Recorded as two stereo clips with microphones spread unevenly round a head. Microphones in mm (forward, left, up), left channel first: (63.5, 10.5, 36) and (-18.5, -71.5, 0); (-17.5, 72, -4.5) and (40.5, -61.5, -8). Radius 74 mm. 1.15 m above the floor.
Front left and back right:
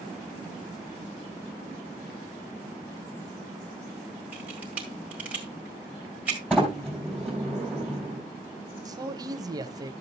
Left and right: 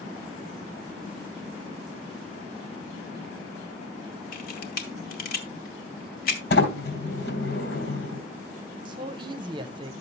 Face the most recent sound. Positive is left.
turn(degrees=-115)